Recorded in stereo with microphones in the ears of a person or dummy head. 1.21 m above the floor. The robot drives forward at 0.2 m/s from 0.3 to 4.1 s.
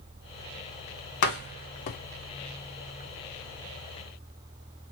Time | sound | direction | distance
1.2 | a door slam | 50° left (ahead or behind) | 0.6 m